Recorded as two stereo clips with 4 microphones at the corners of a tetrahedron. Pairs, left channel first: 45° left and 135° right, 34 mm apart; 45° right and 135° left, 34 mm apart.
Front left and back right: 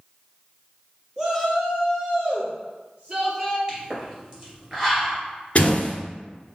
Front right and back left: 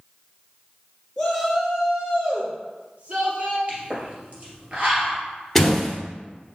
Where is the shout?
110° right, 1.4 m; by 3.6 s straight behind, 2.5 m.